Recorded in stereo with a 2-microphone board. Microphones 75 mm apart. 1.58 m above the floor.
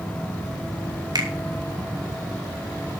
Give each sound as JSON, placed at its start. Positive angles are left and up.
{"t": 1.1, "sound": "a finger snap", "side_deg": -65, "distance_m": 3.0}